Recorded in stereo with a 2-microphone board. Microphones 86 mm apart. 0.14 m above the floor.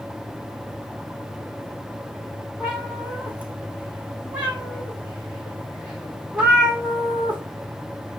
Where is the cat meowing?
15° right (ahead or behind), 2 m.